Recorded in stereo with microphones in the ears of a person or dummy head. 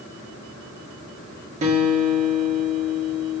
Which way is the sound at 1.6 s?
40° right (ahead or behind).